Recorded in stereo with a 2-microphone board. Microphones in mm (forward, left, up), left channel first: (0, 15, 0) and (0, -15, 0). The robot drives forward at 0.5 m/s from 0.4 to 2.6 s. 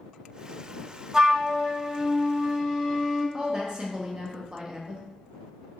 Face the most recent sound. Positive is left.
turn(degrees=-30)  # may be behind; listen again after turning